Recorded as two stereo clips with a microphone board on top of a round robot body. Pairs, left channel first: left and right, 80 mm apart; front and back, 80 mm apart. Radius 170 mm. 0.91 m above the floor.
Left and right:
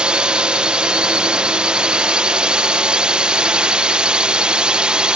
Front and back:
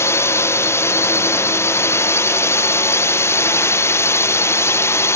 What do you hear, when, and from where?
0.0 s a drone: 20° right